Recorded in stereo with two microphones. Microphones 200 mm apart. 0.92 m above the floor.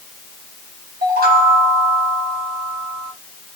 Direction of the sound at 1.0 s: 50° right (ahead or behind).